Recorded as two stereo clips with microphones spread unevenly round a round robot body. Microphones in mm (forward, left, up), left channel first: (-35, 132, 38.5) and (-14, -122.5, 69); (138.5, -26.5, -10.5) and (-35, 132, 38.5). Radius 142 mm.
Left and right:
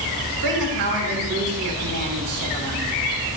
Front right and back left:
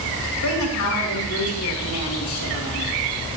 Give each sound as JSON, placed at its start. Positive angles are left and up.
{"t": 0.4, "sound": "a woman speaking", "azimuth_deg": -55, "distance_m": 2.5}